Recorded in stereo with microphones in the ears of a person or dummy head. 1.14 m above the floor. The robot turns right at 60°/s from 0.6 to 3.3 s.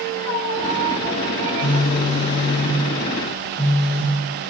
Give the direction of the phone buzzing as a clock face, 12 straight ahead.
9 o'clock.